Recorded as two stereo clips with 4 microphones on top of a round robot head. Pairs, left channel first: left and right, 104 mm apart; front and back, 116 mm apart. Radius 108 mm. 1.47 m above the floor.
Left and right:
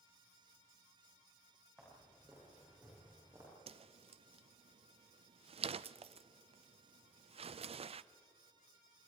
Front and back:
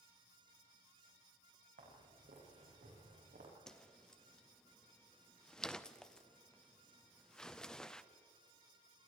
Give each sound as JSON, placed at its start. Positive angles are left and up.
{"t": 1.8, "sound": "footsteps", "azimuth_deg": -170, "distance_m": 6.0}
{"t": 3.7, "sound": "a whoosh", "azimuth_deg": -85, "distance_m": 0.6}